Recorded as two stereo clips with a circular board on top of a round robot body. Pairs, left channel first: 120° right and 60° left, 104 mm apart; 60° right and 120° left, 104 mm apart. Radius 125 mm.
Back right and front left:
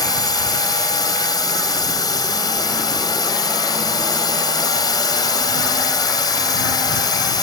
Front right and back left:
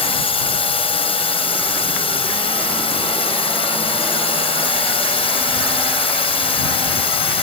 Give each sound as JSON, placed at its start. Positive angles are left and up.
{"t": 0.0, "sound": "a drone", "azimuth_deg": -75}